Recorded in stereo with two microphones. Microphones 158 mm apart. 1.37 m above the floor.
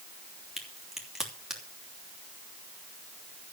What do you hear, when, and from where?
0.6 s a crack: 5° right (ahead or behind), 3 m